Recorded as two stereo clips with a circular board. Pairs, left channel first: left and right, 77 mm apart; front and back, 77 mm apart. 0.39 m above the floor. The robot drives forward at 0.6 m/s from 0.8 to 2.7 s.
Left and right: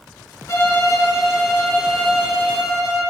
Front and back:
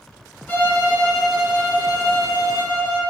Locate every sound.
0.5 s a violin: 60° left, 0.7 m; by 3.0 s 155° left, 1.1 m